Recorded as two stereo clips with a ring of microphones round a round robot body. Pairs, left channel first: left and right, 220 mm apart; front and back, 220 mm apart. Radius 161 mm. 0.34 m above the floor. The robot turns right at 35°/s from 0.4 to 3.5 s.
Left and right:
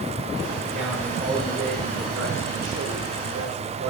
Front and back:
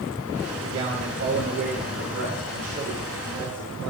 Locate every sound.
0.6 s a man speaking: 175° left, 4.5 m; by 3.9 s 85° right, 4.5 m